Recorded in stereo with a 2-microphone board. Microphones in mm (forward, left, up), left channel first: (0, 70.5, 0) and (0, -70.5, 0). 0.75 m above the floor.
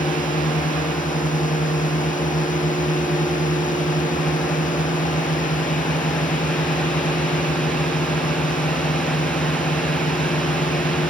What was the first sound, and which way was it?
A drone, 70° left (ahead or behind).